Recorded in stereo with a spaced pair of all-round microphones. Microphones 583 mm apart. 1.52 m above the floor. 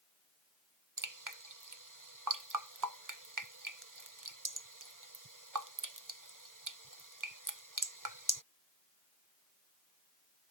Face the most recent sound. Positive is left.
turn(degrees=-30)  # may be behind; listen again after turning